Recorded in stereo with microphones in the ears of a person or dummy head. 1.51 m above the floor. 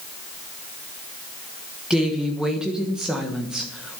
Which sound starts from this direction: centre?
A woman speaking, at 1.9 s.